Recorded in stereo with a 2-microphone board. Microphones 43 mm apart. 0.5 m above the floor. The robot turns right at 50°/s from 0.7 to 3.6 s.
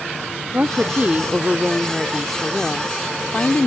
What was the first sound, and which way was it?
A woman speaking, 75° right.